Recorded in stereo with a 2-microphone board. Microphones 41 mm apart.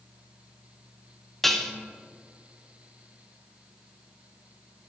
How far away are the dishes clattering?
About 0.6 m.